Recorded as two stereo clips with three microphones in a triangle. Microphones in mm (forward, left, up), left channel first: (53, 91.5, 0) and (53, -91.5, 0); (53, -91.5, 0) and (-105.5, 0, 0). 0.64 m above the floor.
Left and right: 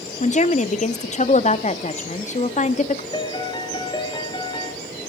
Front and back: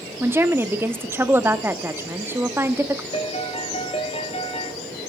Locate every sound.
0.2 s a woman speaking: 80° left, 0.9 m
3.1 s a piano: 25° left, 1.6 m